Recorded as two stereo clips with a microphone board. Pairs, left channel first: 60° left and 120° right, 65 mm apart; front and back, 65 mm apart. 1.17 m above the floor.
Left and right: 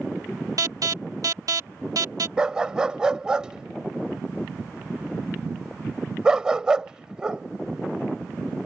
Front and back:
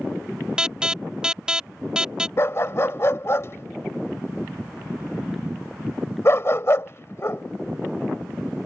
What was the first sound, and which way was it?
An alarm, 105° right.